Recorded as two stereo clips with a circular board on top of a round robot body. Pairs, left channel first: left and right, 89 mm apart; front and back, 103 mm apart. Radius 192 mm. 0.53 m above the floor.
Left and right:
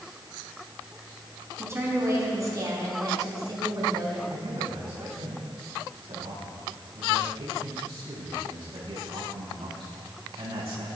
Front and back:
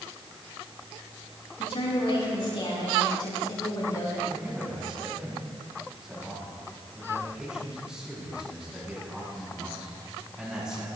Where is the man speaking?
95° right, 5.5 m.